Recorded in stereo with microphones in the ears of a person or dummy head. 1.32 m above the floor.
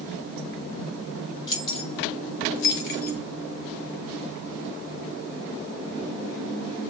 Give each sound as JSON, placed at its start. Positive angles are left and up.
{"t": 1.5, "sound": "keys jangling", "side_deg": 25, "distance_m": 0.9}